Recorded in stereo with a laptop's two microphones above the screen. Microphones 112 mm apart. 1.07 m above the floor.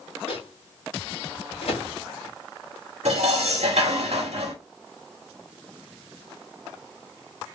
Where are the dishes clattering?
80° right, 1.3 m.